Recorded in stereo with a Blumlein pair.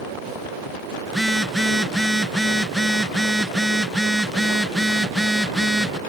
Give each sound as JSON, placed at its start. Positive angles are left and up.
{"t": 1.1, "sound": "a phone buzzing", "azimuth_deg": 0}